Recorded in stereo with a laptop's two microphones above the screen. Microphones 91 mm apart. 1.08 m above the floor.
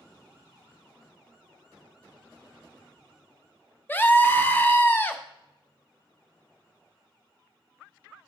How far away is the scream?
About 1.0 m.